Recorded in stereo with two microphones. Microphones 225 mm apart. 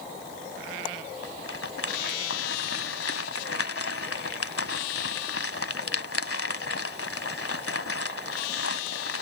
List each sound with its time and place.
1.2 s a rattle: 80° left